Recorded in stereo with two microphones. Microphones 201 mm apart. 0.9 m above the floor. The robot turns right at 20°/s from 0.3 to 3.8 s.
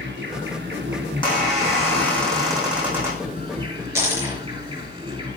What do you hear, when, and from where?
0.0 s an insect: 100° right, 4 m; by 5.4 s 30° right, 4 m
1.1 s a squeak: 150° left, 5 m; by 3.3 s 165° right, 5 m
4.0 s a dropped coin: 10° right (ahead or behind), 5 m